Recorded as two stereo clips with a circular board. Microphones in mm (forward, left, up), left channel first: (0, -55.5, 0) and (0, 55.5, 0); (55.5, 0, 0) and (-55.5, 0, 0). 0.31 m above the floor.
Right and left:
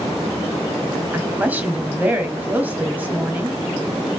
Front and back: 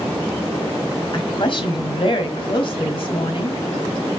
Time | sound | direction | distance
1.1 | a woman speaking | 20° left | 1.5 m